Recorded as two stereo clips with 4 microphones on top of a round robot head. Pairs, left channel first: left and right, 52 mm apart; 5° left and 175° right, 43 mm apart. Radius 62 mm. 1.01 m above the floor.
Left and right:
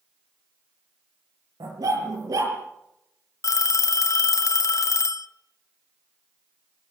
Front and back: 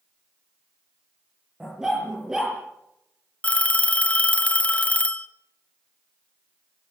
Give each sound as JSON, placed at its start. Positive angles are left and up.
{"t": 1.6, "sound": "a dog barking", "azimuth_deg": -95, "distance_m": 6.5}
{"t": 3.4, "sound": "a phone ringing", "azimuth_deg": 65, "distance_m": 1.1}